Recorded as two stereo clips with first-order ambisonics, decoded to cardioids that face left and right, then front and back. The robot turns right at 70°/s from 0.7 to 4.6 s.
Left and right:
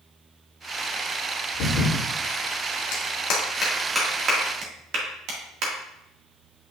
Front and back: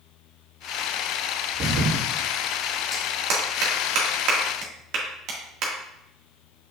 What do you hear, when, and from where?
1.5 s a thud: 115° left, 4 m; by 2.0 s 145° left, 4 m
2.9 s a clap: 110° left, 2.0 m; by 5.7 s 135° right, 2.0 m